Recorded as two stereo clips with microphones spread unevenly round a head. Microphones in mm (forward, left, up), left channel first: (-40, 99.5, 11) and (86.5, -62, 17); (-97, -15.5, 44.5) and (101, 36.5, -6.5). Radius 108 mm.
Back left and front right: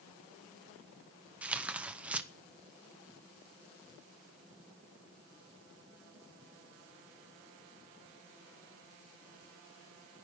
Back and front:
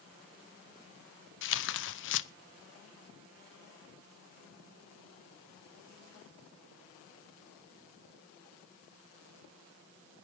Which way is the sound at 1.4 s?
135° right.